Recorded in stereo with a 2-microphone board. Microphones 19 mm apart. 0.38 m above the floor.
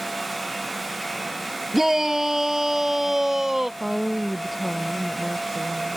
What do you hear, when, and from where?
1.7 s a shout: 15° right (ahead or behind); by 3.7 s 20° right (ahead or behind)
3.8 s a woman speaking: centre (ahead or behind)